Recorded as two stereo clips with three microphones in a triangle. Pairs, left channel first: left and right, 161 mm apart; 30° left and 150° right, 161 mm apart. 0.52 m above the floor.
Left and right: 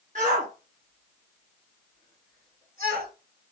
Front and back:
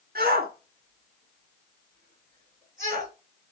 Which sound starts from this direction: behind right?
A shout, at 0.1 s.